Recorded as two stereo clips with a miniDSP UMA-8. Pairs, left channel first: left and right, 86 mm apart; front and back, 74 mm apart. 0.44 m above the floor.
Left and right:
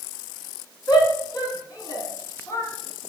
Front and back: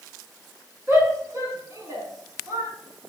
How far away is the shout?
About 4.5 m.